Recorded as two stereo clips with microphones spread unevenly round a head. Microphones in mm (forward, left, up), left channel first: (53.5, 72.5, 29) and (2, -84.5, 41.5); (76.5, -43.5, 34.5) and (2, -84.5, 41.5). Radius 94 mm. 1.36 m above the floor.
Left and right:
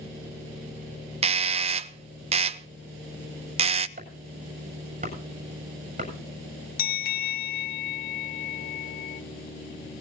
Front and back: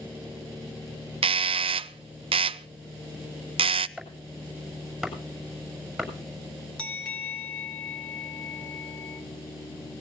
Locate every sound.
1.2 s a doorbell: 165° right, 0.6 m
4.0 s chopping: 60° right, 7 m
6.8 s a bell: 115° left, 0.8 m